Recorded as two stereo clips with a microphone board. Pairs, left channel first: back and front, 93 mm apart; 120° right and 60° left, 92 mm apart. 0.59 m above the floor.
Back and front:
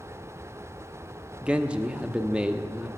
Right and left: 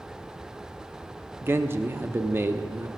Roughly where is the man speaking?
Ahead left.